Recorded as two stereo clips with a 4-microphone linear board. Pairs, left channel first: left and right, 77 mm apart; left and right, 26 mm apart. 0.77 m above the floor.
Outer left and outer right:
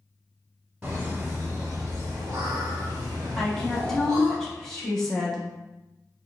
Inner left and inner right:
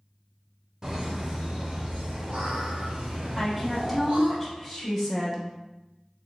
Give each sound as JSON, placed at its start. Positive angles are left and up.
{"t": 0.8, "sound": "laughter", "side_deg": -15, "distance_m": 1.1}
{"t": 3.4, "sound": "a woman speaking", "side_deg": 5, "distance_m": 1.0}